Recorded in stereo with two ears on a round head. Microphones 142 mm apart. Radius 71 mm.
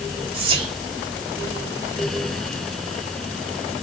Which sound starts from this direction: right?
Whispering, at 0.3 s.